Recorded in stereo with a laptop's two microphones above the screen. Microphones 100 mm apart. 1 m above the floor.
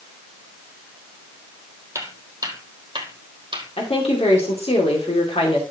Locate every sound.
1.9 s footsteps: 30° right (ahead or behind), 2 m; by 3.7 s 55° right (ahead or behind), 2.5 m
3.8 s a woman speaking: 80° left, 2.5 m